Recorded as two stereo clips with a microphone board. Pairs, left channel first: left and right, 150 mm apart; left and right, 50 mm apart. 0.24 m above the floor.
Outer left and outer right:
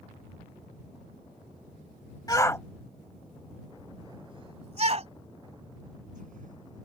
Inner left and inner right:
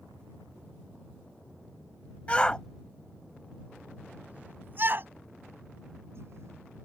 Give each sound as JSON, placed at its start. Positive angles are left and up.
{"t": 2.3, "sound": "a shout", "side_deg": 25}